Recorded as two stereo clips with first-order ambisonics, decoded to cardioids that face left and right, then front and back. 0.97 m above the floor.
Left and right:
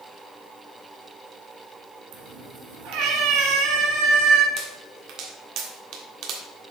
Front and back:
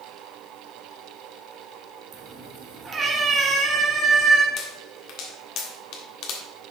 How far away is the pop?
About 1.5 m.